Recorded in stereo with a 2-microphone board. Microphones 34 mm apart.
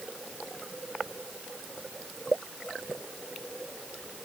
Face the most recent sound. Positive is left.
No sound to turn to.